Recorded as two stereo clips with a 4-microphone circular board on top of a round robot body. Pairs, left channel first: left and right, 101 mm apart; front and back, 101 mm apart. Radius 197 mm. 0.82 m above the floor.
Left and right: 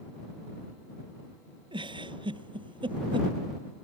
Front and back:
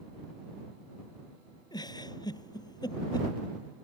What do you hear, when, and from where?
1.7 s a giggle: 50° right